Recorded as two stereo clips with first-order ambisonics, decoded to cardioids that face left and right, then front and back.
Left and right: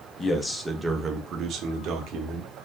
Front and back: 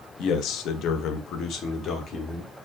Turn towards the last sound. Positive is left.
turn(degrees=-60)